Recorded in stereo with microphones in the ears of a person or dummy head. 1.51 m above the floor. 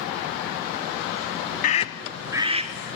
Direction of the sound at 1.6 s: 40° left (ahead or behind).